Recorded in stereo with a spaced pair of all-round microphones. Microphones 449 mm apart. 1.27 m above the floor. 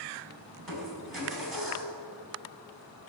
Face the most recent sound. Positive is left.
turn(degrees=-50)  # may be behind; listen again after turning